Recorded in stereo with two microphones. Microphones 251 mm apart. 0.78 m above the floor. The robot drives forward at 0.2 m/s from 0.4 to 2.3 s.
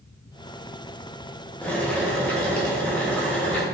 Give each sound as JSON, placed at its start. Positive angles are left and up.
{"t": 1.6, "sound": "boiling", "side_deg": 5, "distance_m": 0.6}